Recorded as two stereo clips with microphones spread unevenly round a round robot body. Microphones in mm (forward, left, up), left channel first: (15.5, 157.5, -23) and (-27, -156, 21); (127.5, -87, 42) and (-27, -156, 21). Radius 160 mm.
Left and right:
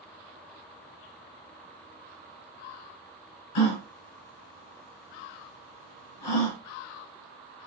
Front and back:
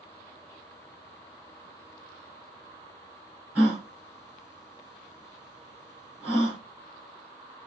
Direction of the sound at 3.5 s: 115° left.